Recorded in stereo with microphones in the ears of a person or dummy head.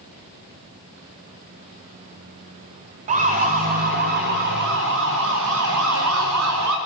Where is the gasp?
No gasp in this recording.